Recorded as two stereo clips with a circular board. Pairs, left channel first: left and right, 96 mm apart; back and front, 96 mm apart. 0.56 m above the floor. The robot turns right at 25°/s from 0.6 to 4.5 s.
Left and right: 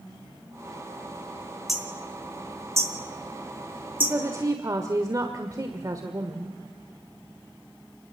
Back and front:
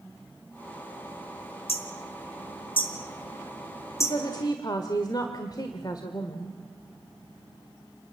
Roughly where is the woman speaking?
Behind right.